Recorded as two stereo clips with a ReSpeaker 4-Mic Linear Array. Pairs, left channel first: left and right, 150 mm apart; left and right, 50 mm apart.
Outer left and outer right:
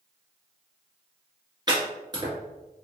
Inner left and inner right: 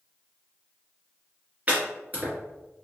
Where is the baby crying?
I don't hear a baby crying.